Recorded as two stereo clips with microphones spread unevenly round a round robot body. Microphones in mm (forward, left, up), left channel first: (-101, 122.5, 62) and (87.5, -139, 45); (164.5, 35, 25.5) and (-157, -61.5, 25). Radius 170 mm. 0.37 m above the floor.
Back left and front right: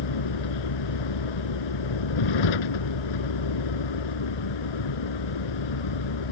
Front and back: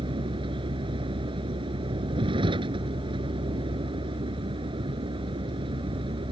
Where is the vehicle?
120° left.